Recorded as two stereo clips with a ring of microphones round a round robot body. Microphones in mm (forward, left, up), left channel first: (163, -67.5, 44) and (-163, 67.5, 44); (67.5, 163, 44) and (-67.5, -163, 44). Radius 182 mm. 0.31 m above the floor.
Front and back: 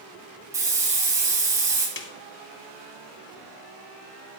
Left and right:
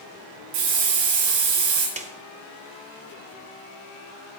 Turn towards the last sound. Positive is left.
turn(degrees=-55)